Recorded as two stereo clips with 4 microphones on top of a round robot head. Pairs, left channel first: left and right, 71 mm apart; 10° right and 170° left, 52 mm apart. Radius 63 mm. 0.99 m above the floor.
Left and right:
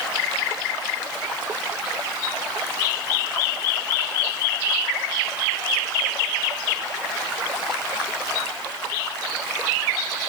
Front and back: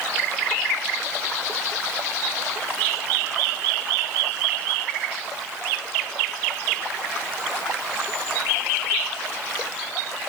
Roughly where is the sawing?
No sawing in this recording.